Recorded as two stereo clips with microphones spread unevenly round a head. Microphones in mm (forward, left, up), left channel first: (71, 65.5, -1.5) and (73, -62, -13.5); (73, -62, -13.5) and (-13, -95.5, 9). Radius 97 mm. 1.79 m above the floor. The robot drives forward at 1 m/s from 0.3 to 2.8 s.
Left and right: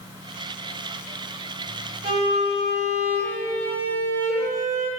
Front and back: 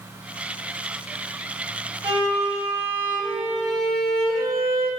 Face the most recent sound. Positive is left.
turn(degrees=-160)